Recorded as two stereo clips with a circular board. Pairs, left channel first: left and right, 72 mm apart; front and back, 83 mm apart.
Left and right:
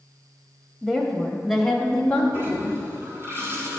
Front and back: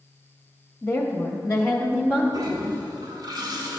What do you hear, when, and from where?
0.8 s a woman speaking: 25° right, 1.2 m; by 2.2 s 40° left, 1.0 m
2.3 s a toilet flushing: 145° right, 1.5 m